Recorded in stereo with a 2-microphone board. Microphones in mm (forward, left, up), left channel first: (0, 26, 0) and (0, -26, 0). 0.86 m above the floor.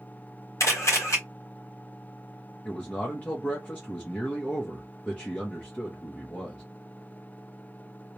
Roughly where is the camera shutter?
Left.